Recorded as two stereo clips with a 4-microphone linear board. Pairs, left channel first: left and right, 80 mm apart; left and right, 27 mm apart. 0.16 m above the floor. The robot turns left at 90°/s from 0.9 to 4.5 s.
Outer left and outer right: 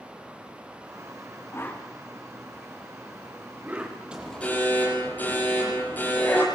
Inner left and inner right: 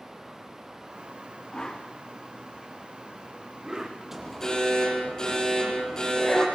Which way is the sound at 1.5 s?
35° left (ahead or behind).